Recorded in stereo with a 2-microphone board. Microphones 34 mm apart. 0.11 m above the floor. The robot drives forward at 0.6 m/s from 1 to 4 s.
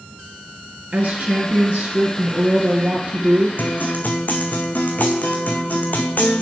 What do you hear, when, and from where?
0.9 s a woman speaking: 40° right (ahead or behind), 1.7 m; by 3.5 s 30° right (ahead or behind), 2 m
3.6 s a guitar: 60° left (ahead or behind), 1.2 m; by 6.4 s 55° left (ahead or behind), 1.4 m